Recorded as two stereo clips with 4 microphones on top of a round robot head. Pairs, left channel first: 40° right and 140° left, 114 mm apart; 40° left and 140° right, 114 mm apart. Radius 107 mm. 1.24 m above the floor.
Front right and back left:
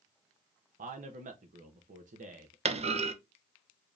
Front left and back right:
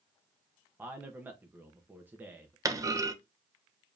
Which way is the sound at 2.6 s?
160° left.